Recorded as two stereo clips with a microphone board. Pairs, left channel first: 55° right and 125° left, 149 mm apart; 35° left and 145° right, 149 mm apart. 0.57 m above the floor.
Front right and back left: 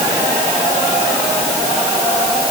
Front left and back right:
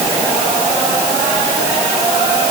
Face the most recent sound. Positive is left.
No sound to turn to.